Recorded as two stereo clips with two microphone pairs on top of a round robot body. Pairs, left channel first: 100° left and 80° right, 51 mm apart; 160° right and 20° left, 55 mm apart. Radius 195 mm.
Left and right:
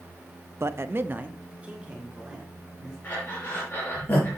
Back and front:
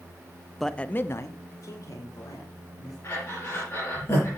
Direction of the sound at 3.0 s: 150° left.